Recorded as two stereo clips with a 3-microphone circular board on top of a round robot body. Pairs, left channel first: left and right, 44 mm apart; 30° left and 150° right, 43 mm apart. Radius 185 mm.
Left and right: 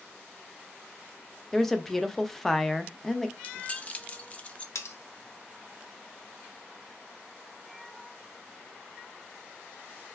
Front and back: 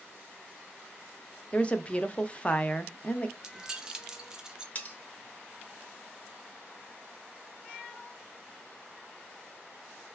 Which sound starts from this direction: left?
Cutlery clinking, at 4.8 s.